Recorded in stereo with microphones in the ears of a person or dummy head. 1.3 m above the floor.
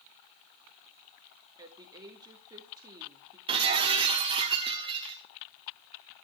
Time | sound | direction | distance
1.6 | a woman speaking | 30° right (ahead or behind) | 2.5 m
3.5 | breaking glass | 35° right (ahead or behind) | 1.3 m